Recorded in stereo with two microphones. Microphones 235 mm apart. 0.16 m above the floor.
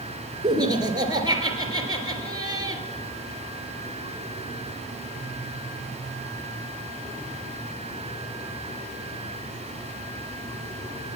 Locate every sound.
0.4 s laughter: 15° right (ahead or behind), 2.5 m